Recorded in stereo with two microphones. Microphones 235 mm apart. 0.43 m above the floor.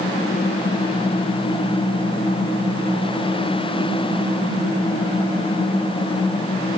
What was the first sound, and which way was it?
Only background noise.